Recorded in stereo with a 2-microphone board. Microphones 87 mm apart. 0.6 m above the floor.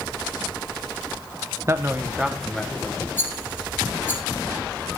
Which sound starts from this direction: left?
A rattle, at 3.2 s.